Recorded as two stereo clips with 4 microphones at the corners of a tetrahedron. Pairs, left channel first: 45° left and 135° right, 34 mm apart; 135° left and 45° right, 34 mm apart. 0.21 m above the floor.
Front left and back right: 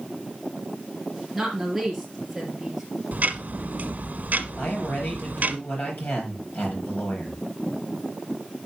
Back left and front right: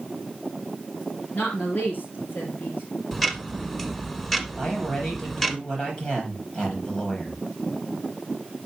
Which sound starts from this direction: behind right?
Ticking, at 3.1 s.